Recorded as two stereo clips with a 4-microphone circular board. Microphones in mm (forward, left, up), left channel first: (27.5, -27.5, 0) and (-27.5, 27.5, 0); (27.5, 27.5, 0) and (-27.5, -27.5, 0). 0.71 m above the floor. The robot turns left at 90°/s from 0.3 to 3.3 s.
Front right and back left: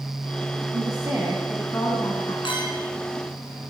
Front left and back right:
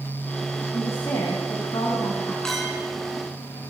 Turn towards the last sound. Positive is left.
turn(degrees=-115)